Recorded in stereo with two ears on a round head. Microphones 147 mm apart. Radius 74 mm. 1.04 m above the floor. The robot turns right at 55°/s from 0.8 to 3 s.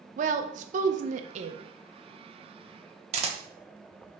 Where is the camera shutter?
40° right (ahead or behind), 0.8 m.